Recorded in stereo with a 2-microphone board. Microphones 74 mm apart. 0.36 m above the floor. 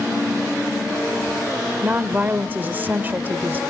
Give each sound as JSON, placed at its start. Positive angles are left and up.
{"t": 1.8, "sound": "a woman speaking", "side_deg": -25, "distance_m": 0.9}